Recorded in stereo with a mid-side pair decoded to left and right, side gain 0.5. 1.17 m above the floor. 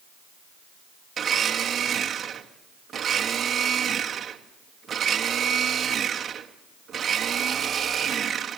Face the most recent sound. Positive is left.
turn(degrees=-40)